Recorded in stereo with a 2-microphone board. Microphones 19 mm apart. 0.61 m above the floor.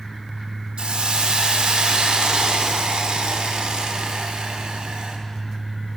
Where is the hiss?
75° right (ahead or behind), 0.7 m.